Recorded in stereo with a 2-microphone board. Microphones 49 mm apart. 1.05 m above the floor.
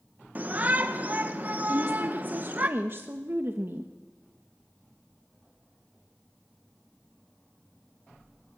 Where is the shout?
35° right (ahead or behind), 1.1 m.